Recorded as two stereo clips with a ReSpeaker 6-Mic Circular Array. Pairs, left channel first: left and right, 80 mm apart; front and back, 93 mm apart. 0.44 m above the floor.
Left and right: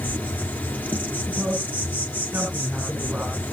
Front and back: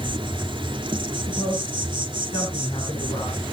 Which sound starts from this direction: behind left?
An insect, at 0.0 s.